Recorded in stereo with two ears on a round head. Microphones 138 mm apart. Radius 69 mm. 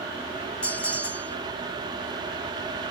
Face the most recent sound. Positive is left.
turn(degrees=10)  # may be behind; listen again after turning